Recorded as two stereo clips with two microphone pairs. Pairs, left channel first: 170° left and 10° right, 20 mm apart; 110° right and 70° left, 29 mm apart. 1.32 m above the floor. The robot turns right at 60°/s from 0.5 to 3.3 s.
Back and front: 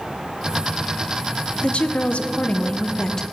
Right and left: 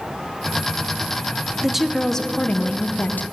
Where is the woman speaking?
145° left, 0.6 m; by 3.2 s 120° right, 0.6 m.